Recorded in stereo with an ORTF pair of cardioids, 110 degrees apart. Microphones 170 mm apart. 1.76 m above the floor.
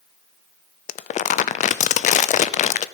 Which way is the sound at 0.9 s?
50° left.